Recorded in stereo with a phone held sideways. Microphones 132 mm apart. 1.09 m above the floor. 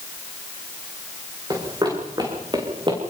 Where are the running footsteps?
30° right (ahead or behind), 7 m; by 3.0 s 35° right (ahead or behind), 7 m.